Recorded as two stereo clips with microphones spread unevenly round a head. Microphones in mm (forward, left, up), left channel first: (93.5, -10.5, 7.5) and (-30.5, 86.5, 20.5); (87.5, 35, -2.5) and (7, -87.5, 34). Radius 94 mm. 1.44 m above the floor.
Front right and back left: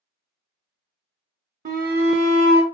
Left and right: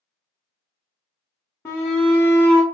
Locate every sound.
1.6 s a shout: 125° left, 0.6 m